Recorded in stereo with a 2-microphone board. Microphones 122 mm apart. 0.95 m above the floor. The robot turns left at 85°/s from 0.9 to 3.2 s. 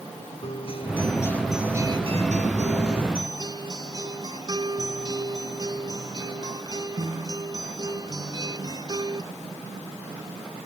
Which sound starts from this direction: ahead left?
A guitar, at 0.4 s.